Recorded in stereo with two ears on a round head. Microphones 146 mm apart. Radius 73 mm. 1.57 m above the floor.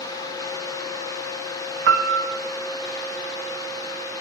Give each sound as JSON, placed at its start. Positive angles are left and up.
{"t": 1.9, "sound": "a piano", "side_deg": -80, "distance_m": 0.7}